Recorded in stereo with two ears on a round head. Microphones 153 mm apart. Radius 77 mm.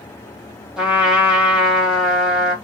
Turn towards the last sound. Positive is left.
turn(degrees=-5)  # may be behind; listen again after turning